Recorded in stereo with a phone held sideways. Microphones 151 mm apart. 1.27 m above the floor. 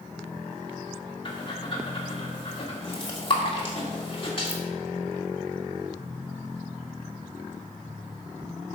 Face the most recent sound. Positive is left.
turn(degrees=40)  # may be behind; listen again after turning